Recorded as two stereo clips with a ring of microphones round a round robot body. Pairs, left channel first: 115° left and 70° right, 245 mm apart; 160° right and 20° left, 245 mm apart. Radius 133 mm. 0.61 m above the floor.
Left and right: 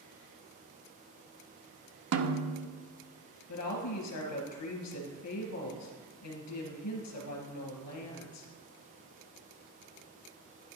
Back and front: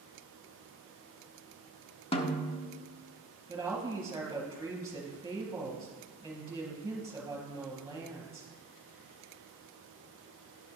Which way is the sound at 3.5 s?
100° left.